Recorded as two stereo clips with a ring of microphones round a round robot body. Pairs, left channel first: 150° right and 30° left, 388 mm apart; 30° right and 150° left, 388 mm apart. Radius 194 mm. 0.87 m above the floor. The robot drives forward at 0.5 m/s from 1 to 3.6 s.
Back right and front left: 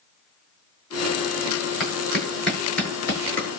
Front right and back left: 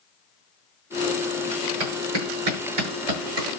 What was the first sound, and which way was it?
A clap, 120° left.